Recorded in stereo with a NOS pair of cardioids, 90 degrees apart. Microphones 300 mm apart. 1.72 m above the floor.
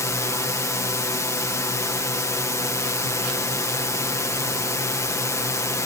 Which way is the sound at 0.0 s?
10° left.